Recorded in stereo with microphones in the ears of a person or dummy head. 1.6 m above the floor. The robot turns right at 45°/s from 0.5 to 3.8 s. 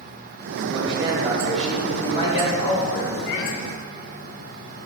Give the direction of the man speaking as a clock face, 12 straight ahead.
1 o'clock.